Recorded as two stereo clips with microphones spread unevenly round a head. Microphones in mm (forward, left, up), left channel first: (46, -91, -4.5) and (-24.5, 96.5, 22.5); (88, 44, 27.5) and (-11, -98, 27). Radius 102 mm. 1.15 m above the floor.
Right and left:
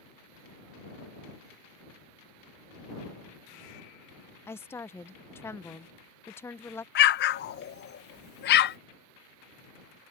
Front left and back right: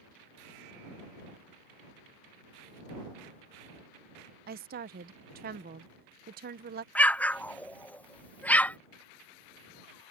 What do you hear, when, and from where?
4.5 s a woman speaking: 140° right
7.0 s an explosion: 25° right